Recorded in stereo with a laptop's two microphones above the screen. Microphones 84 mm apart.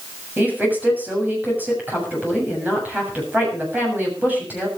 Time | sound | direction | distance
0.4 | a woman speaking | 20° right (ahead or behind) | 7 m